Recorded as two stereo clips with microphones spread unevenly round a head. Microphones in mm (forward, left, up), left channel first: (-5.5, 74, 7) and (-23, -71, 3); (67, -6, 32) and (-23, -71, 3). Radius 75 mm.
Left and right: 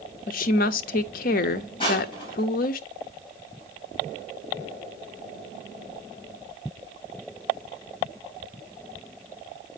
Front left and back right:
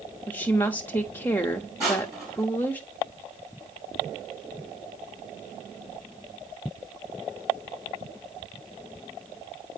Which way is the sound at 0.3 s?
105° left.